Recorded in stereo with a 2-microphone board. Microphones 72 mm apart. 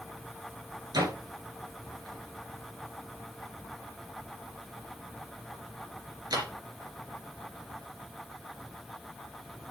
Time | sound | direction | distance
0.9 | a door slam | 70° right (ahead or behind) | 3 m